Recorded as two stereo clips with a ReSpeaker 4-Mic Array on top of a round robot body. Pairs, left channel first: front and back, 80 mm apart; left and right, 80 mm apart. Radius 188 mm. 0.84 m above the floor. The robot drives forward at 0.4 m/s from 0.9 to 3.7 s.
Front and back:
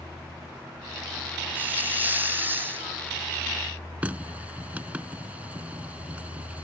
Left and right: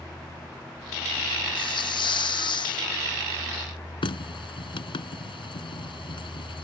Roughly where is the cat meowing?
No cat meowing in this recording.